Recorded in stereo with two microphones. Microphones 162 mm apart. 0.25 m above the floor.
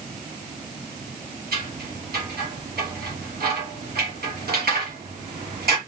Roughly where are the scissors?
Right.